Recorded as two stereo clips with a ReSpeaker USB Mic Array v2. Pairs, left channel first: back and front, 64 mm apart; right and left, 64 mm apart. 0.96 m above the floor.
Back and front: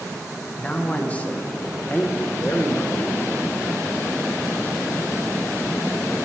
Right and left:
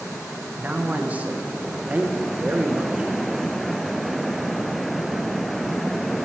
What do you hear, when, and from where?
0.6 s a man speaking: 135° left, 0.6 m